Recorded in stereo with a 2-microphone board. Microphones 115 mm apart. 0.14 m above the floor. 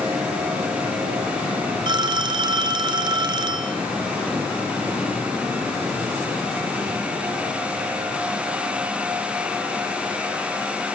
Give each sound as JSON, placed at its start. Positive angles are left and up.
{"t": 1.9, "sound": "a phone ringing", "side_deg": -45, "distance_m": 1.1}